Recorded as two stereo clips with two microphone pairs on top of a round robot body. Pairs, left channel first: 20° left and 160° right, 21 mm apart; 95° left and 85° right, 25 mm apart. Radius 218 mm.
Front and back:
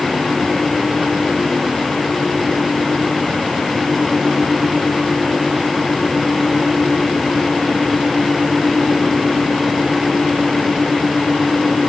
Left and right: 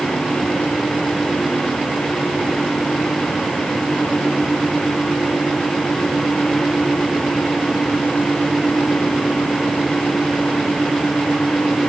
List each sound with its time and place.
Only background noise.